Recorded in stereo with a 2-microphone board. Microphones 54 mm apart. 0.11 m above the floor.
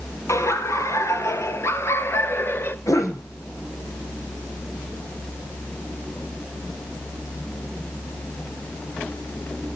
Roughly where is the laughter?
Left.